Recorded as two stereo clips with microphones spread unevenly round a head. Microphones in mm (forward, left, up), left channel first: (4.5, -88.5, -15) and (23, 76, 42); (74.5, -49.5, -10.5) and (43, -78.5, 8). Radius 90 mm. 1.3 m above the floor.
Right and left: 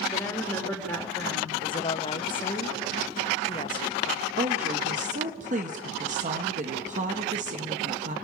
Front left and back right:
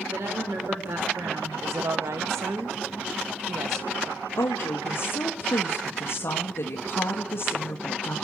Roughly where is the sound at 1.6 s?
Behind right.